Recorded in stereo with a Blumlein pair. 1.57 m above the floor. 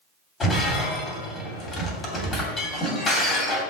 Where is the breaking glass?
15° left, 2.5 m.